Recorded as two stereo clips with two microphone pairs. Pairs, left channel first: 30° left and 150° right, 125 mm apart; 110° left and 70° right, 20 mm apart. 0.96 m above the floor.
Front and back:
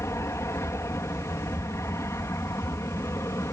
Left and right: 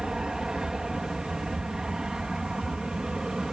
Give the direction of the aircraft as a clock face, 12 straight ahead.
1 o'clock.